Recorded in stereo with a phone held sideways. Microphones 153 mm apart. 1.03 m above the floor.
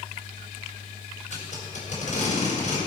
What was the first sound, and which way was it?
Tape being pulled, 55° left (ahead or behind).